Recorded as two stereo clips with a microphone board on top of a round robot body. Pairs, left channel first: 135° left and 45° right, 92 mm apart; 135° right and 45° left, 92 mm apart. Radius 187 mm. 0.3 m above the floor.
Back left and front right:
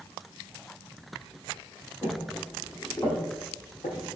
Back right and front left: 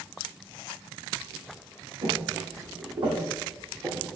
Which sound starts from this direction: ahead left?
Footsteps, at 2.0 s.